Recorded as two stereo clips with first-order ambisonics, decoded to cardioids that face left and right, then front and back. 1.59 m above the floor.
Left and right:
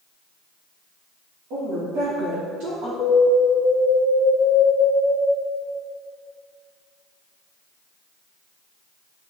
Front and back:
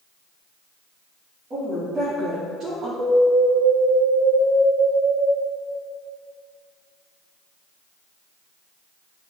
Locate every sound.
1.5 s a woman speaking: 110° right, 3 m; by 2.9 s 115° right, 1.9 m
3.0 s an alarm: 145° left, 1.6 m